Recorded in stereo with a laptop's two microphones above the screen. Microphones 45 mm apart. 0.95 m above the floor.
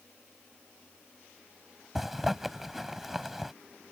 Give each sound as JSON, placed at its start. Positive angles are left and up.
{"t": 1.9, "sound": "a zipper", "side_deg": -5}